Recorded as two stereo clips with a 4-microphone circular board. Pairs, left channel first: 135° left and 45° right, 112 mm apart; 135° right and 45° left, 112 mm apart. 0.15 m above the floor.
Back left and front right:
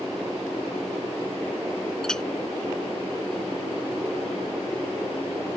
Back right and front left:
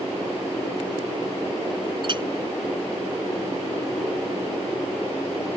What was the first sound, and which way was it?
A clink, 55° left.